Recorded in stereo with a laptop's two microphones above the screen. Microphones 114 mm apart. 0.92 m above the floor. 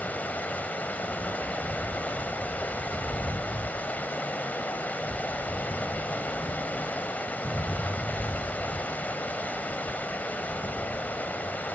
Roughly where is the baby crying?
No baby crying in this recording.